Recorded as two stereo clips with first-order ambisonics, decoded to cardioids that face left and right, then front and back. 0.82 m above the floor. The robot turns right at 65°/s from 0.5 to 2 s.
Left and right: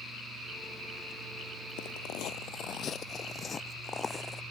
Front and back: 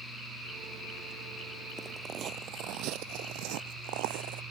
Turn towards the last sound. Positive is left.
turn(degrees=165)